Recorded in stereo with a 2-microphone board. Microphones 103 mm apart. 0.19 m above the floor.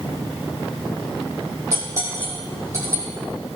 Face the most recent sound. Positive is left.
turn(degrees=-30)  # may be behind; listen again after turning